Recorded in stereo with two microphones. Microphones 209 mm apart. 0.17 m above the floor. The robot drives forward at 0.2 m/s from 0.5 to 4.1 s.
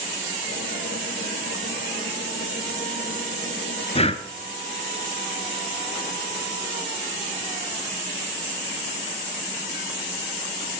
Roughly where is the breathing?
Left.